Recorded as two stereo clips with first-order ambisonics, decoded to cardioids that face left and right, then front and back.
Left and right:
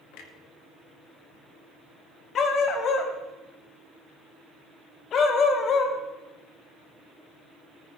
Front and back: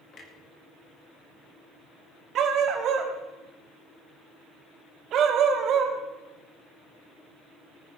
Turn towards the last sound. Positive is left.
turn(degrees=140)